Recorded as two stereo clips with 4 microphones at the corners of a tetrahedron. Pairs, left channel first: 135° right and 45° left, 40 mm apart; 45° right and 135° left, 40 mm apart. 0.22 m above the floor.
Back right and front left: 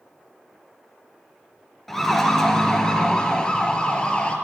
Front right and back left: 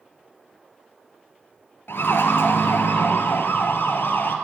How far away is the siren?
About 3 m.